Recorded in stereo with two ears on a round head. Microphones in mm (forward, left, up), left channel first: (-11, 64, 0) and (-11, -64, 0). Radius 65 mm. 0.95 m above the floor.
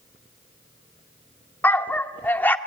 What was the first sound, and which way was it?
A dog barking, 15° left (ahead or behind).